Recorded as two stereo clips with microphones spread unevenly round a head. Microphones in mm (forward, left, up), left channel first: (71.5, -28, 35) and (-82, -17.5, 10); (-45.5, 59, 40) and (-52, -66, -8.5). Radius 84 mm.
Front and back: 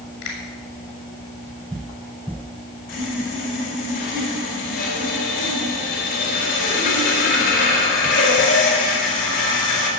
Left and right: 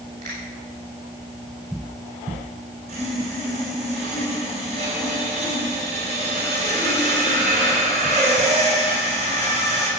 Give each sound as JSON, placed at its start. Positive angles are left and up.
{"t": 0.2, "sound": "a finger snap", "azimuth_deg": -40, "distance_m": 6.5}
{"t": 2.9, "sound": "sawing", "azimuth_deg": -35, "distance_m": 5.0}